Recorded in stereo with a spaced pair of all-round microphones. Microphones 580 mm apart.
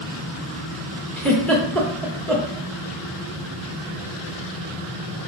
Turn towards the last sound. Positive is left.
turn(degrees=5)  # may be behind; listen again after turning